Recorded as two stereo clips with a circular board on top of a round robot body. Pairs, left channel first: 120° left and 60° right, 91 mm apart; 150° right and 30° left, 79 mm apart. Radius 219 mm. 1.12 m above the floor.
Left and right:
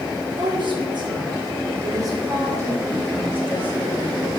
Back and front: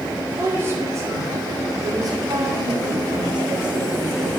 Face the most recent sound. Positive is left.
turn(degrees=15)